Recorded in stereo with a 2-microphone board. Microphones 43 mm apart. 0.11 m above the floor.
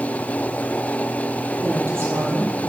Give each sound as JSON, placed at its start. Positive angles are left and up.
{"t": 1.6, "sound": "a woman speaking", "side_deg": -65, "distance_m": 2.5}